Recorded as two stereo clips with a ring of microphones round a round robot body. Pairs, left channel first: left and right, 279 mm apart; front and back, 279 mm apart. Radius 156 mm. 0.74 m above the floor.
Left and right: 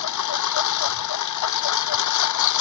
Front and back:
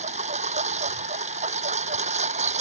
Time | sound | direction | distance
0.0 | a lawn mower | 110° left | ?